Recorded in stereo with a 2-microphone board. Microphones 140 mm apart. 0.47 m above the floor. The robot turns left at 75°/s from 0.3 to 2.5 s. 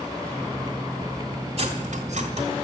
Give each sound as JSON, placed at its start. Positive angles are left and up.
{"t": 1.6, "sound": "cutlery clinking", "side_deg": -50, "distance_m": 1.4}